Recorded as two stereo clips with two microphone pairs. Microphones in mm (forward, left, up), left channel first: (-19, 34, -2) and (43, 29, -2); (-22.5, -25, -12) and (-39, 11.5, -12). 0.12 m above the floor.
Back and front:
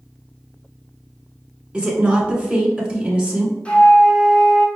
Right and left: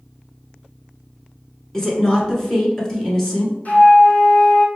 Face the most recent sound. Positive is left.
turn(degrees=-115)